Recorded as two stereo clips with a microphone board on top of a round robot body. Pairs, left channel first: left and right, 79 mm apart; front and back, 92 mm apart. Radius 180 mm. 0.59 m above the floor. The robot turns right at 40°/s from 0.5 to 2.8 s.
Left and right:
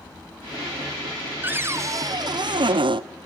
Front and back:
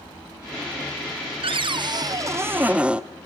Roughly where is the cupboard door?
Behind right.